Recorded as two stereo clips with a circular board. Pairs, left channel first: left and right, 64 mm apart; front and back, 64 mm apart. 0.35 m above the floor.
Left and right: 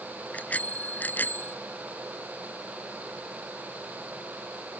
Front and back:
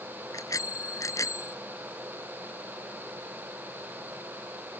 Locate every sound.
0.3 s a bicycle bell: 25° left; by 1.6 s 35° left